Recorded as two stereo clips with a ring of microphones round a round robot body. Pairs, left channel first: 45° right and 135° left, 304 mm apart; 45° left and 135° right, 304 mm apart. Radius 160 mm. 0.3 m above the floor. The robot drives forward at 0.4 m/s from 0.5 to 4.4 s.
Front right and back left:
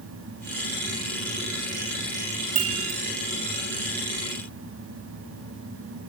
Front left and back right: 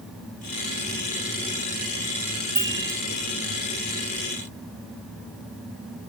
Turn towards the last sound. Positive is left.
turn(degrees=150)